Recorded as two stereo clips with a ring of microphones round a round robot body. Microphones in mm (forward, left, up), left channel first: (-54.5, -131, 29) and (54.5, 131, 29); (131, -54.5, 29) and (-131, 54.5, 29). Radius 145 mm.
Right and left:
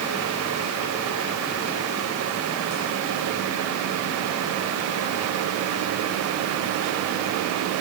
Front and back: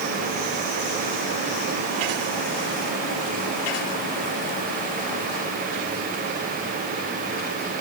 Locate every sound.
Only background noise.